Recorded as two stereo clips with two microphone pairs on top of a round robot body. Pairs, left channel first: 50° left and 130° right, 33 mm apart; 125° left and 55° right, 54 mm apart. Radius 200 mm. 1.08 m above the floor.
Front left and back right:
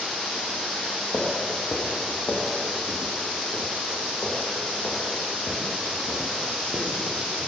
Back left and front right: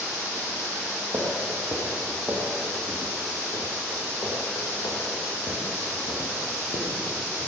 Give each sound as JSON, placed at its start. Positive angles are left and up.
{"t": 1.1, "sound": "footsteps", "azimuth_deg": -5, "distance_m": 2.5}